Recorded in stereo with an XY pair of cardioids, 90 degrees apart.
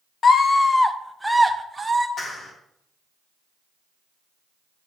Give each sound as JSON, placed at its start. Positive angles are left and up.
{"t": 0.2, "sound": "a scream", "azimuth_deg": 50, "distance_m": 0.9}
{"t": 2.2, "sound": "a clap", "azimuth_deg": 55, "distance_m": 3.5}